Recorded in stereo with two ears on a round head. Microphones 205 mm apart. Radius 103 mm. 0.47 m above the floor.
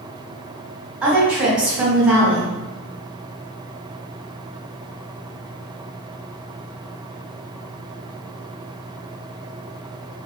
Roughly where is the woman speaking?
Centre.